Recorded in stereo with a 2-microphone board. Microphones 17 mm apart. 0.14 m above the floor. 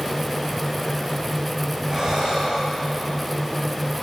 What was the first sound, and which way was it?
Breathing, 40° right (ahead or behind).